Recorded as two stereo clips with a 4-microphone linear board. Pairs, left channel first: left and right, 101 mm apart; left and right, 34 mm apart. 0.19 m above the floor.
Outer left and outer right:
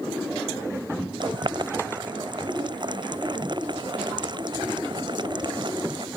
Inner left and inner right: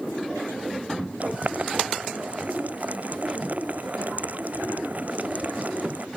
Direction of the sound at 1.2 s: 50° right (ahead or behind).